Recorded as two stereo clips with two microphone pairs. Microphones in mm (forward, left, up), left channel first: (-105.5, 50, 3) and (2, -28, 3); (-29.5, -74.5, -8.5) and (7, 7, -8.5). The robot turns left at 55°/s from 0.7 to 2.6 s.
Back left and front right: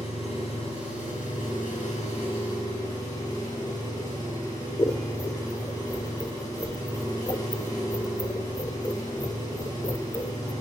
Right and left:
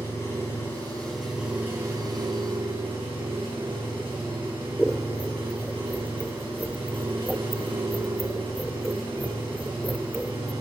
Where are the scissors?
165° left, 0.5 m.